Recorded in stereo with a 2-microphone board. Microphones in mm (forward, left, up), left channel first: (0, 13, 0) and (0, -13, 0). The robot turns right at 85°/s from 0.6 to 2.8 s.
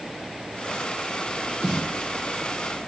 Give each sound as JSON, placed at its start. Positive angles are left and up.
{"t": 1.6, "sound": "a snare drum", "azimuth_deg": -115, "distance_m": 1.1}